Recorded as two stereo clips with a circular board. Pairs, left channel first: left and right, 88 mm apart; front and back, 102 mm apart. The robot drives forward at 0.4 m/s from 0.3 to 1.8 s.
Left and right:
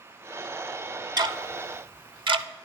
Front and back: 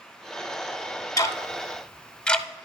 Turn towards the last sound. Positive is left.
turn(degrees=-80)